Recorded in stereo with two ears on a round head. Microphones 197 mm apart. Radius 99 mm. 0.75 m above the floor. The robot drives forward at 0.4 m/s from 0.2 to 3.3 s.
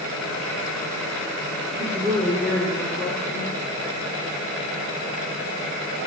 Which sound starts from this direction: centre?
A woman speaking, at 1.8 s.